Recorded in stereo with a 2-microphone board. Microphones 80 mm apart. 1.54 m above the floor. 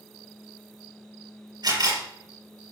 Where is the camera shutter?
60° right (ahead or behind), 4.5 m.